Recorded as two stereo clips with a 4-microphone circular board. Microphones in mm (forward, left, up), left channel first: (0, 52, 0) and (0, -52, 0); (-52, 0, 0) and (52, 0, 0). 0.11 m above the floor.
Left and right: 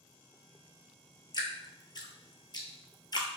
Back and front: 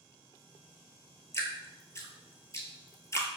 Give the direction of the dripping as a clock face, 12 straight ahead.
8 o'clock.